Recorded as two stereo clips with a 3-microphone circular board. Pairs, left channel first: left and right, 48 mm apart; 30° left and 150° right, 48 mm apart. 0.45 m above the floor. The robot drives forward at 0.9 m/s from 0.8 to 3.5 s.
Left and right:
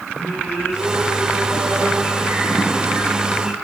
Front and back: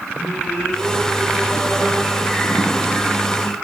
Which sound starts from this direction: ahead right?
Singing, at 0.1 s.